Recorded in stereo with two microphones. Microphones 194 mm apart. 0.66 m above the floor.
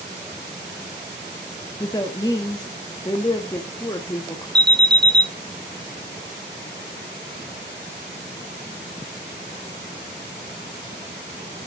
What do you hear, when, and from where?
1.8 s a woman speaking: 20° left (ahead or behind), 0.6 m
4.5 s an alarm: 20° right (ahead or behind), 0.8 m